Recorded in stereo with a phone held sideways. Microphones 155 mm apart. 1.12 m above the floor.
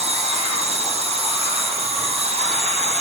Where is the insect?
45° right (ahead or behind), 3 m.